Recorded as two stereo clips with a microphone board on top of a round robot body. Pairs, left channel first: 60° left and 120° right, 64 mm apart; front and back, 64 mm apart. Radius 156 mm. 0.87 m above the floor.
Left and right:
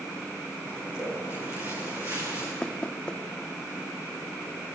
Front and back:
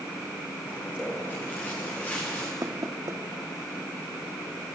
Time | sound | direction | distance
0.7 | footsteps | 60° right | 9 m
2.6 | knocking | 135° left | 1.0 m